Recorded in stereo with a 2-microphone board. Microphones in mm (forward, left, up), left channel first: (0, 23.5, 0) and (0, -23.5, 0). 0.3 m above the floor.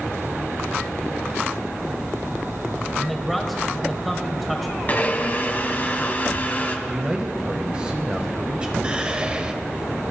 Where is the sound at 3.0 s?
Centre (ahead or behind), 1.0 m.